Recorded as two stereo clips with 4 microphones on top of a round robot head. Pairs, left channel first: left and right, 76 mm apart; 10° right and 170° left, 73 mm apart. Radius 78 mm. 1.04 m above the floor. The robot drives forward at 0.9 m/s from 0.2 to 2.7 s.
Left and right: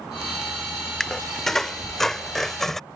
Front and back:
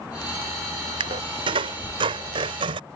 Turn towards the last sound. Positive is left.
turn(degrees=175)